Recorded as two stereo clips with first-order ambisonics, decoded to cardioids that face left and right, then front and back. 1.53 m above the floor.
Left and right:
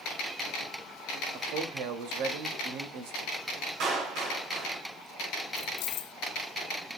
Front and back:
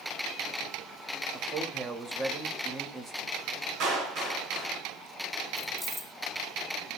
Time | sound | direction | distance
1.3 | a man speaking | 110° right | 2.5 m
3.8 | a clap | 130° right | 7 m
5.6 | keys jangling | 80° left | 1.0 m